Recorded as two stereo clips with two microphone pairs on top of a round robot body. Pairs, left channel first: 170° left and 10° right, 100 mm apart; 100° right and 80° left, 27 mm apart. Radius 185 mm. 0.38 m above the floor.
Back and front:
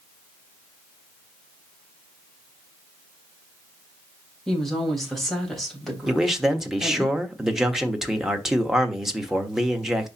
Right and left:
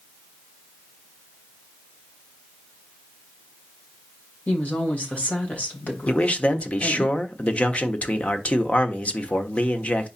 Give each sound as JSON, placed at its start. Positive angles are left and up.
{"t": 4.5, "sound": "a woman speaking", "azimuth_deg": -105, "distance_m": 3.0}
{"t": 6.1, "sound": "a man speaking", "azimuth_deg": -95, "distance_m": 1.4}